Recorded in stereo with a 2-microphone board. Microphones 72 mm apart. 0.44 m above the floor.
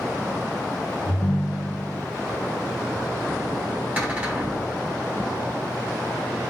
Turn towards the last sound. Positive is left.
turn(degrees=-15)  # may be behind; listen again after turning